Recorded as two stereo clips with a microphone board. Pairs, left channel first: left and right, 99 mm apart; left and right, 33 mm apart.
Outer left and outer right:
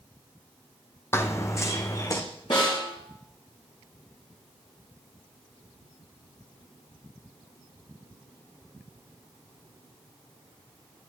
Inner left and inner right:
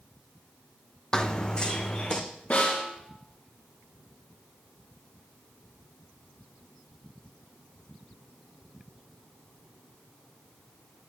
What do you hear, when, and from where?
1.1 s running footsteps: 25° left (ahead or behind), 0.7 m; by 2.2 s 30° left (ahead or behind), 1.4 m
2.5 s a snare drum: 60° left (ahead or behind), 3 m